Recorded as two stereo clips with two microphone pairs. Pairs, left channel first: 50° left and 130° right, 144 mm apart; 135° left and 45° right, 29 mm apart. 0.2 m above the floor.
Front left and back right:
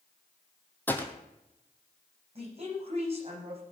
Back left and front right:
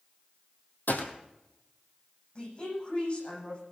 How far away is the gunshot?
About 1.8 m.